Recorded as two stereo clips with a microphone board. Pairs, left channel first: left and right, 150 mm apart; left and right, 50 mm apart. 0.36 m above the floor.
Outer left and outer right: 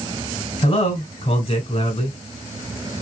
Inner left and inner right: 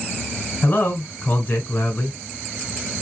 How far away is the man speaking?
About 1.7 m.